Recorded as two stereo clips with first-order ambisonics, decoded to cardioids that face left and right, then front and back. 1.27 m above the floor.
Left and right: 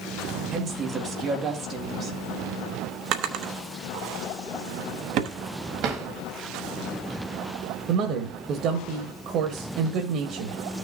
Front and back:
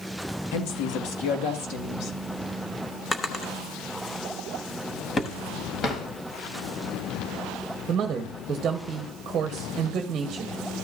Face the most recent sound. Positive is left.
turn(degrees=-125)